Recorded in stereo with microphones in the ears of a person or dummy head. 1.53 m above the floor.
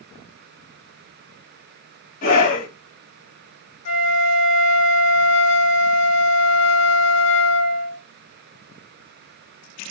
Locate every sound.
2.2 s a scream: 40° left (ahead or behind), 2 m
3.9 s a flute: 85° left, 1.3 m